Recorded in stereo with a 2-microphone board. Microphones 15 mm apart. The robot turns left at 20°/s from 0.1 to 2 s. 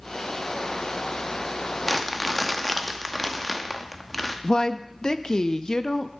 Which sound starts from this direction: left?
A woman speaking, at 4.4 s.